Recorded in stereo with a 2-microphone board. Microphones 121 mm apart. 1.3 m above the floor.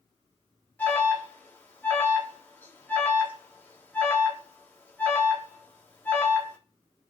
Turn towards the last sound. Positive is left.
turn(degrees=15)  # may be behind; listen again after turning